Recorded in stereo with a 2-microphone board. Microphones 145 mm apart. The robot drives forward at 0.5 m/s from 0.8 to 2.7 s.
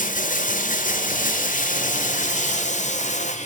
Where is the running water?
70° left (ahead or behind), 1.6 m; by 3.5 s 60° left (ahead or behind), 1.7 m.